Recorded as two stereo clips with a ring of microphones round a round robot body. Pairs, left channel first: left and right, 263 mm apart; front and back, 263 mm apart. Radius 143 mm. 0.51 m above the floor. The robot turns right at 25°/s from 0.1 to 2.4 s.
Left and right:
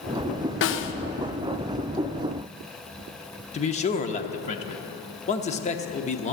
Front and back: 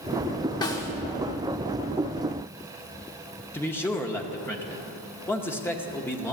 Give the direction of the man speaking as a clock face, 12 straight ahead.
10 o'clock.